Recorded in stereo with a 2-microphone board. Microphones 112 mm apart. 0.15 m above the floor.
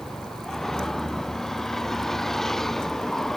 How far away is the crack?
I don't hear a crack.